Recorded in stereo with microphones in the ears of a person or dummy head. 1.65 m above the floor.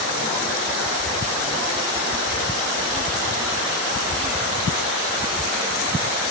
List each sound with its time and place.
Only background noise.